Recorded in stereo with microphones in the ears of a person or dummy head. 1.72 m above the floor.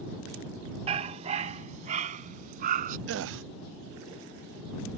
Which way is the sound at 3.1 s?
70° right (ahead or behind).